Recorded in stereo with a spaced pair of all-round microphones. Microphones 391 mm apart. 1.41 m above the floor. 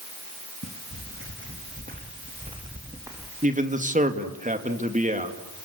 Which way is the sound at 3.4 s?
20° right (ahead or behind).